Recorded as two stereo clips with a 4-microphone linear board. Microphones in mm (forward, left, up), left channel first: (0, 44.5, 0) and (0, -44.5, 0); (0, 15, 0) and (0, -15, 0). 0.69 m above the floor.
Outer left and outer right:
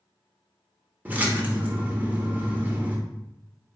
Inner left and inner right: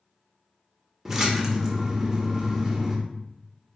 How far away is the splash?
About 0.9 m.